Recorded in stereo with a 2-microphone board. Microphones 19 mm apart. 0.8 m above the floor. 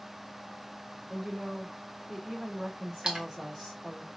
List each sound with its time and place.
1.1 s a woman speaking: 40° right (ahead or behind), 3 m
3.0 s a splash: 45° right (ahead or behind), 1.1 m